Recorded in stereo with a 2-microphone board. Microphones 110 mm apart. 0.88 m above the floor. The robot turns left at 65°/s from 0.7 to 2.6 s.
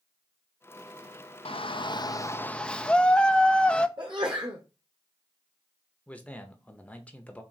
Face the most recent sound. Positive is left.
turn(degrees=10)  # may be behind; listen again after turning